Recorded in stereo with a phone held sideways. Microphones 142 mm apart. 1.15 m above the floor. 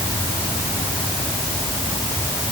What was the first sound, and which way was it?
Only background noise.